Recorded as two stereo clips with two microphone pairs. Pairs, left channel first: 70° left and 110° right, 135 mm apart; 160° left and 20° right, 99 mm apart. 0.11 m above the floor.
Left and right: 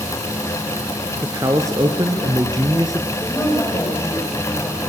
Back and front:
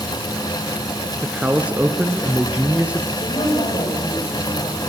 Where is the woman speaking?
140° left, 9 m.